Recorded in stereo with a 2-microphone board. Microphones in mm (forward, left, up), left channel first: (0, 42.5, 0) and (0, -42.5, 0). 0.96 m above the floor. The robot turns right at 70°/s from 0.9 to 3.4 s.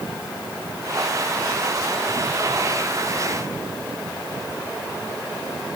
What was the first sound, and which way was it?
Only background noise.